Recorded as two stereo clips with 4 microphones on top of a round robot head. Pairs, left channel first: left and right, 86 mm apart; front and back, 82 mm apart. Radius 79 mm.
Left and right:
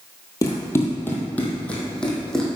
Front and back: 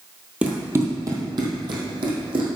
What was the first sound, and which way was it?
Running footsteps, 115° left.